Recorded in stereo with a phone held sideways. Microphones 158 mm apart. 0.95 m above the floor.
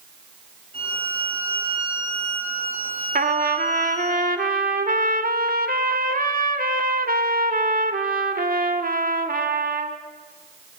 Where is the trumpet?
70° right (ahead or behind), 2 m.